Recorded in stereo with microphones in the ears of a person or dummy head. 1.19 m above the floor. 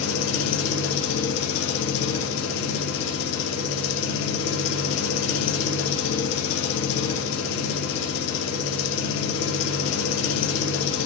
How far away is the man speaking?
No man speaking in this recording.